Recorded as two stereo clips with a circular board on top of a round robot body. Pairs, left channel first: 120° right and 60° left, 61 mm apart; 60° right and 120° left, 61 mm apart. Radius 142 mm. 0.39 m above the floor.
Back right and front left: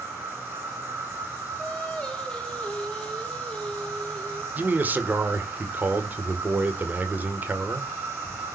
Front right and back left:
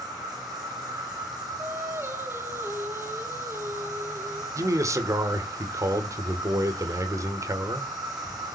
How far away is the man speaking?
About 2 m.